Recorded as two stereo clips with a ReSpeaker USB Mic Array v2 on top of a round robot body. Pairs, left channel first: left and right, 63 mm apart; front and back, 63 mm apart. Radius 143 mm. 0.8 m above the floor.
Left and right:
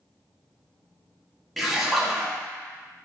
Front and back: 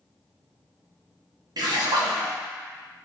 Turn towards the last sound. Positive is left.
turn(degrees=180)